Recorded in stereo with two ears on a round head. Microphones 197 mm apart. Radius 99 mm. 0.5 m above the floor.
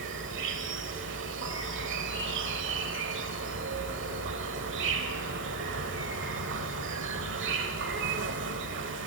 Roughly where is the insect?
Right.